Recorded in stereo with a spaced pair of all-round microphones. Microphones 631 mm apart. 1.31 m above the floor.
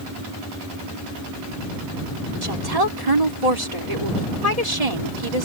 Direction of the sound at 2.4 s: 70° right (ahead or behind).